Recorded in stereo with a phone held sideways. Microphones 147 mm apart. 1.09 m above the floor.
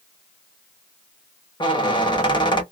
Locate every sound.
1.6 s a squeak: 35° left (ahead or behind), 0.9 m